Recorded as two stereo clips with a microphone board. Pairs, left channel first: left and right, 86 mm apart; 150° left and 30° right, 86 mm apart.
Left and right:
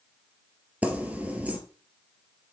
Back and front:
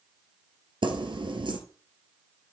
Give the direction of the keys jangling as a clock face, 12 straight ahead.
1 o'clock.